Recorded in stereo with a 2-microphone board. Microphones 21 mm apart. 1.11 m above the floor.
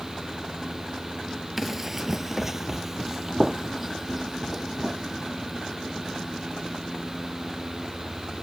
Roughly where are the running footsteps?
Centre.